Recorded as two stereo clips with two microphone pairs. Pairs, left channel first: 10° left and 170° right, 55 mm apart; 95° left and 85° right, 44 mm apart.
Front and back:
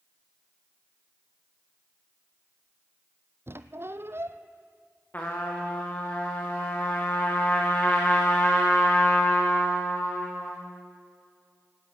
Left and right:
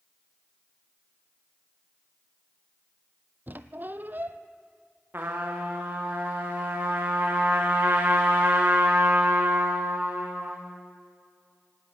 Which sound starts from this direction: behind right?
A squeak, at 3.5 s.